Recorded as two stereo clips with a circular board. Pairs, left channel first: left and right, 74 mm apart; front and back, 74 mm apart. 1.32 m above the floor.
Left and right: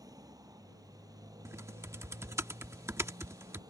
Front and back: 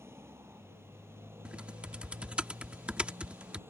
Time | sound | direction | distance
0.0 | a motorcycle | 125° right | ?
1.4 | typing on a keyboard | 115° right | ?